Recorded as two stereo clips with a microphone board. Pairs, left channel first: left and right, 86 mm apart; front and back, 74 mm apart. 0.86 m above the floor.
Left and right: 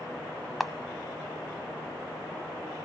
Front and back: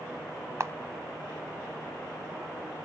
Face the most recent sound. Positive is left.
turn(degrees=180)